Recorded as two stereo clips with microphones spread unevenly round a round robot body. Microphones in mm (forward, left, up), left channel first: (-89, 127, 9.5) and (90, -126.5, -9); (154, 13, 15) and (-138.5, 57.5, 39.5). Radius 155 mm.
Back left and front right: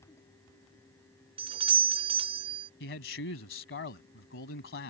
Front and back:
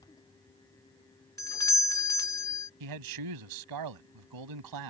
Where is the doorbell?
50° right.